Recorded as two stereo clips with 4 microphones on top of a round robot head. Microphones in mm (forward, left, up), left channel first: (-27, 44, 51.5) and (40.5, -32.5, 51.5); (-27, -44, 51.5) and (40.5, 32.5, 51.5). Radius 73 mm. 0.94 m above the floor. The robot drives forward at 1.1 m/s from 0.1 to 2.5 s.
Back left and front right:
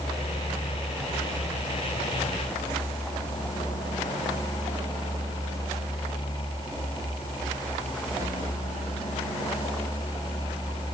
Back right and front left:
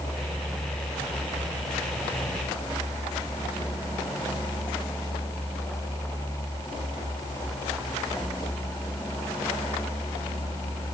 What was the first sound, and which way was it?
Only background noise.